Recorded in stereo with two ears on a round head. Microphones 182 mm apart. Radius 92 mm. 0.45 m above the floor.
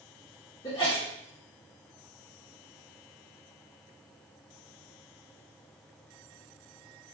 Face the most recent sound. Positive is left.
turn(degrees=20)  # may be behind; listen again after turning